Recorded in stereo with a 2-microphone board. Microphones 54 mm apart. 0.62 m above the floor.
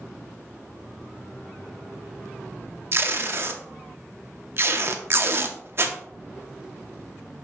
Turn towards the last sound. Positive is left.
turn(degrees=-45)  # may be behind; listen again after turning